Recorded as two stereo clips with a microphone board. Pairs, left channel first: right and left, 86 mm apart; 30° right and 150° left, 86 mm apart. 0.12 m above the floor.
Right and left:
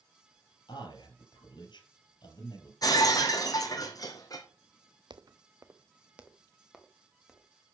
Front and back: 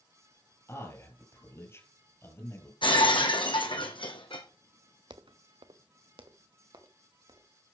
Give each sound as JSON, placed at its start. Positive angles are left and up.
{"t": 0.7, "sound": "a man speaking", "azimuth_deg": -85, "distance_m": 3.0}
{"t": 2.8, "sound": "breaking glass", "azimuth_deg": -45, "distance_m": 1.9}
{"t": 5.1, "sound": "footsteps", "azimuth_deg": 120, "distance_m": 0.7}